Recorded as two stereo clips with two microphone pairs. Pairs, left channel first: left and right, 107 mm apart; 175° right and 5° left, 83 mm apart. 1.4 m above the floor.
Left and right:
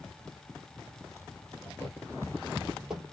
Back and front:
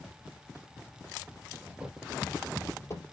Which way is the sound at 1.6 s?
45° left.